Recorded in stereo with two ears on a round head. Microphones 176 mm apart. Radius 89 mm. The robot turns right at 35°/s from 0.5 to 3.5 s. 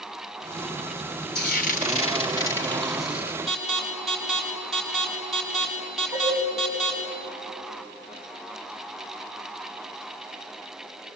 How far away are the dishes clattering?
About 8 m.